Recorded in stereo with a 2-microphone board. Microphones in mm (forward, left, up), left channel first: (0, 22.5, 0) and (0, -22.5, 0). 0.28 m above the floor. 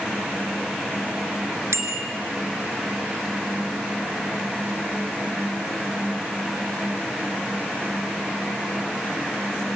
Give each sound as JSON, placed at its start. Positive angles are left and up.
{"t": 1.7, "sound": "a bicycle bell", "side_deg": -75, "distance_m": 3.0}